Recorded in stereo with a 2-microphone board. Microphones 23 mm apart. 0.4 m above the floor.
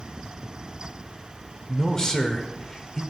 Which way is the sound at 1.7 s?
25° left (ahead or behind).